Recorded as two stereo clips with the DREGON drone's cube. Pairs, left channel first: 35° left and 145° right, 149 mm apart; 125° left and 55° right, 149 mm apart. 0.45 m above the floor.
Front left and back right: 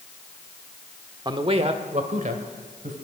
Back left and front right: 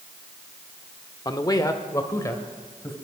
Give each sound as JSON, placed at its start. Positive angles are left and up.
{"t": 1.2, "sound": "a man speaking", "azimuth_deg": 170, "distance_m": 0.9}